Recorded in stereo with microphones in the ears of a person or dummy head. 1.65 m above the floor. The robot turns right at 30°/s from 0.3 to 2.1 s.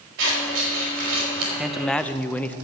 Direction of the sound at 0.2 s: 120° right.